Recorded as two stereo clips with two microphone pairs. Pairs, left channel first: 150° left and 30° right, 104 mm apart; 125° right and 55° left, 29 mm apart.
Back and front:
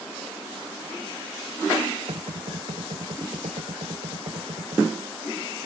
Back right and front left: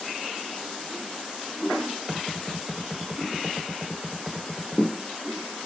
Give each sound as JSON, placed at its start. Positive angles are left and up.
{"t": 2.1, "sound": "knocking", "azimuth_deg": -25}